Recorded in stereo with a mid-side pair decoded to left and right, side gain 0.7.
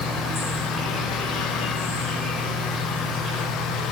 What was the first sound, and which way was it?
An insect, 5° left.